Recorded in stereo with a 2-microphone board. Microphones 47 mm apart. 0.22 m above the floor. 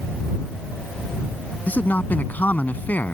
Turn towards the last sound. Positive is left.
turn(degrees=40)  # may be behind; listen again after turning